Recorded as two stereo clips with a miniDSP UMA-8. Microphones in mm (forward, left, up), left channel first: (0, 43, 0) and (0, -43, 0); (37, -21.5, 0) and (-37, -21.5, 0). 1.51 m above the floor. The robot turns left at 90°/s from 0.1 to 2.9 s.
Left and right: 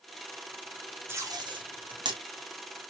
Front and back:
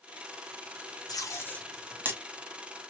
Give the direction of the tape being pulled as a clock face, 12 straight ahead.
1 o'clock.